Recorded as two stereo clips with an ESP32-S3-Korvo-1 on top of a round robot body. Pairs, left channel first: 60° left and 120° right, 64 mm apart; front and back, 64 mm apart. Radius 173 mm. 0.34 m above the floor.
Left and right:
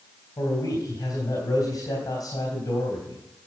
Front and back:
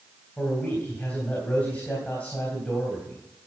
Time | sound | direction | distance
0.4 | a man speaking | 65° left | 3 m